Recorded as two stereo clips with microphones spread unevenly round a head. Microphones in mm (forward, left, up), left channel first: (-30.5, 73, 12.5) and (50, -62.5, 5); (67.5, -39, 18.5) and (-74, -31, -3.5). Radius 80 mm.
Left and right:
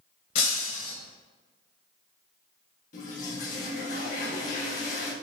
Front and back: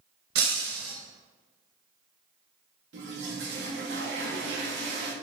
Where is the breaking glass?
165° left, 2.5 m.